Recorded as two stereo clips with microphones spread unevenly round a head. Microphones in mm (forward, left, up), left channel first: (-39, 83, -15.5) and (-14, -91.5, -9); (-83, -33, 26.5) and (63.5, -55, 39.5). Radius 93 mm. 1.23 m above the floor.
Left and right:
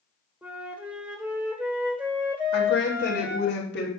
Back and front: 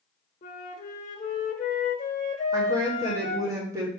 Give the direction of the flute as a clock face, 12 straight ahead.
5 o'clock.